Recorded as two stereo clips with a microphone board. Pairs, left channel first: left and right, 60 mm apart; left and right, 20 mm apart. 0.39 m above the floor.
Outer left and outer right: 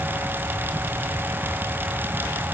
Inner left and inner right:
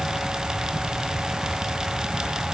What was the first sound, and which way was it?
Only background noise.